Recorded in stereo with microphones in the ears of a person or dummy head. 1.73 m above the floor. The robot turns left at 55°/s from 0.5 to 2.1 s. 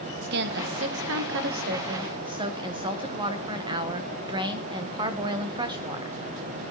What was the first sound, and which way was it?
A woman speaking, 60° right.